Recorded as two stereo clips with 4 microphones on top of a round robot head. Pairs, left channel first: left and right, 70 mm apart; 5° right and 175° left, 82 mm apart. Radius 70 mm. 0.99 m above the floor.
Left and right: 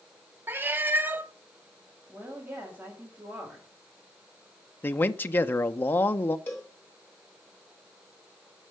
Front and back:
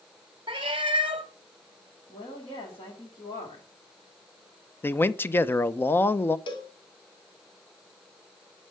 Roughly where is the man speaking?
Ahead left.